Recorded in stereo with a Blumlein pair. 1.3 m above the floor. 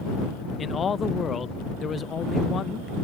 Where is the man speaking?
20° left.